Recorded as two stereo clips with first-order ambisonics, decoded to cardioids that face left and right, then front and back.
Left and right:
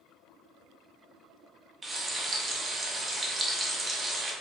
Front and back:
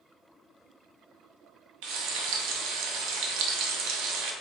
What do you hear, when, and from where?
1.8 s frying: 165° right, 0.6 m